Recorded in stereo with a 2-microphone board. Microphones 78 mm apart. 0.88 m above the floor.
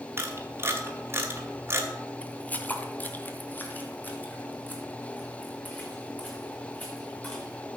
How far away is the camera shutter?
About 2 m.